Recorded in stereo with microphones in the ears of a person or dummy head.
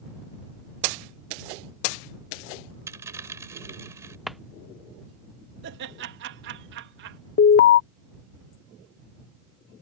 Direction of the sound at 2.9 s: 15° right (ahead or behind).